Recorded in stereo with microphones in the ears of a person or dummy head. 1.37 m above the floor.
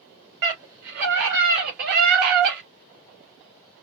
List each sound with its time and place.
0.4 s a scream: 55° right (ahead or behind), 3 m; by 2.6 s 50° right (ahead or behind), 1.3 m